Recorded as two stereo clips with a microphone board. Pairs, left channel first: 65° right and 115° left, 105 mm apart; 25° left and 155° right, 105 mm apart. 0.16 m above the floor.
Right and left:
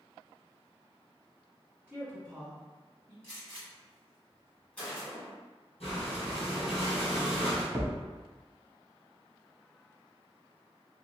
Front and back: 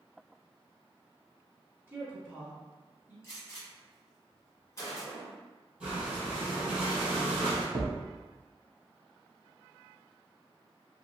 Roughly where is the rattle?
I don't hear a rattle.